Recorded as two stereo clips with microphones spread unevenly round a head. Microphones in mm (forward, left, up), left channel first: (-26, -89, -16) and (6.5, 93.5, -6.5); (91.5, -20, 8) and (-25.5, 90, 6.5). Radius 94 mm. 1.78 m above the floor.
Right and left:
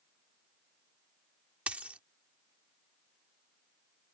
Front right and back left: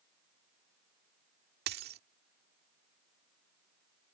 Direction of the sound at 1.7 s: 160° left.